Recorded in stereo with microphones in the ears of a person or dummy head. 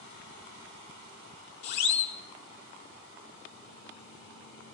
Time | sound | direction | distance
1.6 | a siren | 60° left (ahead or behind) | 3 m